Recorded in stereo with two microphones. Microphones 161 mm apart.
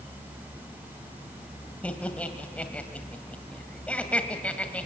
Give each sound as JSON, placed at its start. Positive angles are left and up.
{"t": 1.8, "sound": "laughter", "side_deg": 5, "distance_m": 1.6}